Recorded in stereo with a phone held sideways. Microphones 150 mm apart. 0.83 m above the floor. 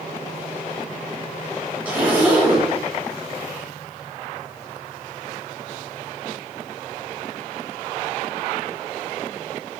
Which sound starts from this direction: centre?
A zipper, at 1.9 s.